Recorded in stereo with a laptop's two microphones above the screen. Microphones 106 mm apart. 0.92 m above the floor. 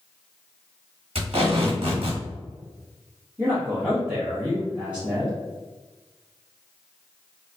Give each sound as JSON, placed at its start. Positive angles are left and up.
{"t": 1.1, "sound": "tape being pulled", "side_deg": -65, "distance_m": 1.5}
{"t": 3.4, "sound": "a man speaking", "side_deg": -15, "distance_m": 0.7}